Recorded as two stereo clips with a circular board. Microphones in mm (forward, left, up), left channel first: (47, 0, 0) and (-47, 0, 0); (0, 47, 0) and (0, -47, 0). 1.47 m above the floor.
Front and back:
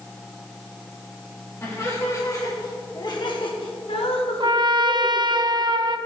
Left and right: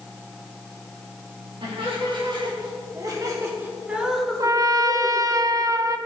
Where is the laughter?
60° right, 3.5 m; by 5.2 s 35° left, 2 m.